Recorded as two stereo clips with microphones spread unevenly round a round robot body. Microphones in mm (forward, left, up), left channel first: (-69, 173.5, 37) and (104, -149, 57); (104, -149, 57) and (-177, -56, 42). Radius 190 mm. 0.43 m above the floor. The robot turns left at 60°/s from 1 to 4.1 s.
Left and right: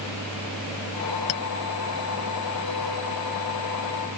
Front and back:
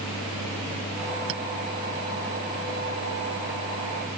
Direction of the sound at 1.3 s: 110° left.